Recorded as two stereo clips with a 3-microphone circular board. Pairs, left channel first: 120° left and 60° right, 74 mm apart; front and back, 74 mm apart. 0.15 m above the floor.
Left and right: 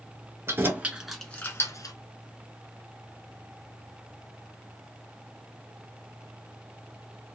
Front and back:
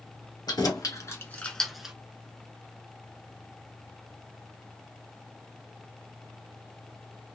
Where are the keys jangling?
10° right, 1.5 m; by 1.9 s 100° left, 1.3 m.